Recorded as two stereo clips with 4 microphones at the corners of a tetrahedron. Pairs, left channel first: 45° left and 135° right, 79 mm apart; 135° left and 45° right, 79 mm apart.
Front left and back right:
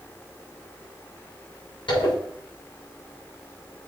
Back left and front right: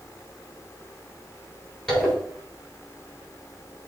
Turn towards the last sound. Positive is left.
turn(degrees=55)